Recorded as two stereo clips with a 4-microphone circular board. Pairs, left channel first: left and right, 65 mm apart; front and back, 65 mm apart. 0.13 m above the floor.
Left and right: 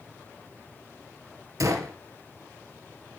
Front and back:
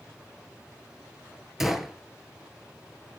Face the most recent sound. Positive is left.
turn(degrees=-95)